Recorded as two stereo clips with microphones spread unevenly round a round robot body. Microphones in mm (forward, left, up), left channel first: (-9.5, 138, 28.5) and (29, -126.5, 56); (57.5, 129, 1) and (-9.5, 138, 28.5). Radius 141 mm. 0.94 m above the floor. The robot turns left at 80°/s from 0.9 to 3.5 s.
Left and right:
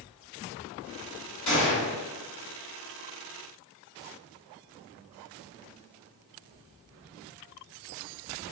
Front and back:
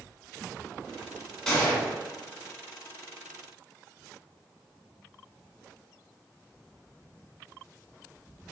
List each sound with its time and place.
1.5 s a gunshot: 85° left, 2.0 m; by 1.9 s 50° left, 2.0 m